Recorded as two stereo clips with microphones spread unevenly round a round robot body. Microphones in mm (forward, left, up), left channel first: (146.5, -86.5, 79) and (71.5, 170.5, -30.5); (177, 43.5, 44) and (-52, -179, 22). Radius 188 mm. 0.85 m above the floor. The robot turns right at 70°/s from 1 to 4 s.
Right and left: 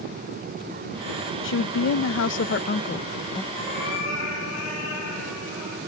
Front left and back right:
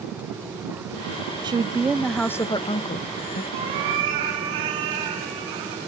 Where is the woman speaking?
100° right, 0.5 m; by 3.4 s 40° left, 0.5 m.